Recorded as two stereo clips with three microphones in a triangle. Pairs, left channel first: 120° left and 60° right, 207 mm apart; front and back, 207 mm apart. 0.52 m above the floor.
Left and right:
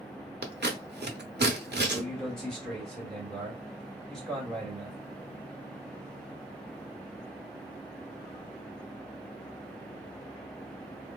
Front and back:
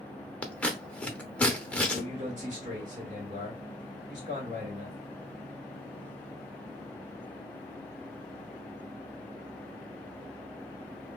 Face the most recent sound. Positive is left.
turn(degrees=-155)